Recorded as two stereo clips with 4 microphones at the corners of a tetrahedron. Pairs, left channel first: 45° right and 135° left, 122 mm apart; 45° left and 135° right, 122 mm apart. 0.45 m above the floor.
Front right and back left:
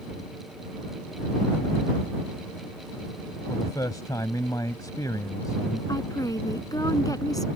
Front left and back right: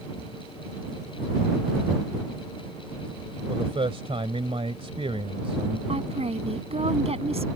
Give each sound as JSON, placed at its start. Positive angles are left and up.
{"t": 3.5, "sound": "a man speaking", "azimuth_deg": -100}
{"t": 5.9, "sound": "a woman speaking", "azimuth_deg": -105}